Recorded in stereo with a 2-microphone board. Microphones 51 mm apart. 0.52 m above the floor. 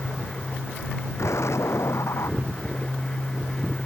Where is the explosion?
70° left (ahead or behind).